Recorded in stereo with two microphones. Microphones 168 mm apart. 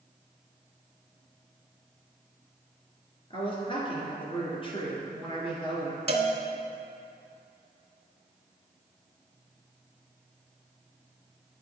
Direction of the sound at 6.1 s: 35° right (ahead or behind).